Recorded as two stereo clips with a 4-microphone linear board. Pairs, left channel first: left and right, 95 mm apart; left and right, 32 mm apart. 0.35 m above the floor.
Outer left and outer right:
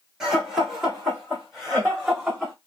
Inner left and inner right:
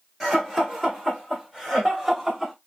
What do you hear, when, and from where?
0.2 s laughter: 5° right (ahead or behind), 1.7 m